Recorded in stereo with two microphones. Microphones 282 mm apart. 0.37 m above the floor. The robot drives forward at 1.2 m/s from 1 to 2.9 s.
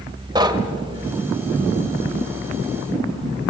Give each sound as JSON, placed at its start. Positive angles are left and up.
{"t": 0.3, "sound": "knocking", "side_deg": -15, "distance_m": 1.3}